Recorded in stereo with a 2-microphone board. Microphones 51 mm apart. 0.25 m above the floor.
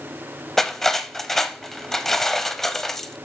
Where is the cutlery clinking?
5° left (ahead or behind), 0.6 m.